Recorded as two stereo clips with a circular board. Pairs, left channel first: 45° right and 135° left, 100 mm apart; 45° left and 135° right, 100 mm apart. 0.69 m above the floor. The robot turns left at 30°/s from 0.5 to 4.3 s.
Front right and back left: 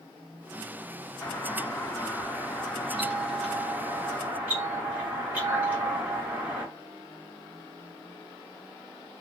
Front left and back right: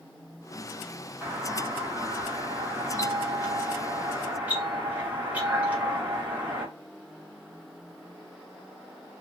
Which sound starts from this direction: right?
A doorbell, at 1.2 s.